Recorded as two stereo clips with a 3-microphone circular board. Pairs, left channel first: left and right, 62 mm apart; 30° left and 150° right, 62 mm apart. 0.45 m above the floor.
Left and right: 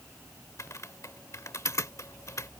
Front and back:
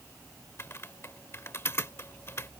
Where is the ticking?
I don't hear ticking.